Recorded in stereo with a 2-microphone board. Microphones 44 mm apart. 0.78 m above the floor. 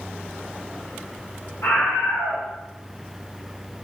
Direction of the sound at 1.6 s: 70° left (ahead or behind).